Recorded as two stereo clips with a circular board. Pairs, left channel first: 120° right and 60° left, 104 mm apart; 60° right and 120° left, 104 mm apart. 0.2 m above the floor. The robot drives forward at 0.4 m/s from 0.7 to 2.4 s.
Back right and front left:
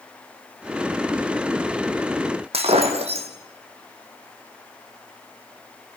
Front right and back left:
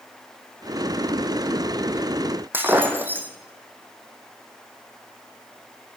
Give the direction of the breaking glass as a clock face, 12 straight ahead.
10 o'clock.